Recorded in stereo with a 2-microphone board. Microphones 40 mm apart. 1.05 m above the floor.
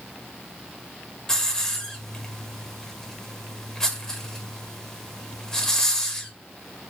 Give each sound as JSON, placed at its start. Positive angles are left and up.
{"t": 1.3, "sound": "a hiss", "side_deg": 15, "distance_m": 1.1}